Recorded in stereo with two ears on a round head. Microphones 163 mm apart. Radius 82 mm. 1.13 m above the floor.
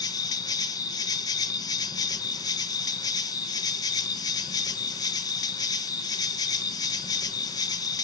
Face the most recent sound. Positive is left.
turn(degrees=20)  # may be behind; listen again after turning